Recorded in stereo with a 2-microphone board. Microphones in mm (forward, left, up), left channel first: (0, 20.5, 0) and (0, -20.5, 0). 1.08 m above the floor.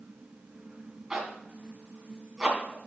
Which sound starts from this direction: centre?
A zipper, at 1.1 s.